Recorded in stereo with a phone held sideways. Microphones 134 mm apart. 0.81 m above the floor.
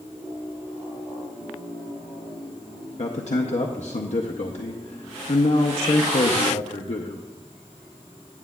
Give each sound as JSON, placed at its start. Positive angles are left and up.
{"t": 3.0, "sound": "a man speaking", "side_deg": 60, "distance_m": 0.6}